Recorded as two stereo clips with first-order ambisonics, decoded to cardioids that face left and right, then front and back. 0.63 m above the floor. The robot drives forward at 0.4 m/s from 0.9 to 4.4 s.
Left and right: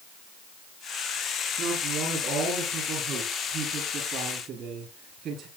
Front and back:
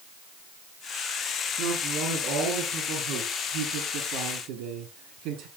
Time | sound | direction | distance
1.6 | a man speaking | 140° right | 8.5 m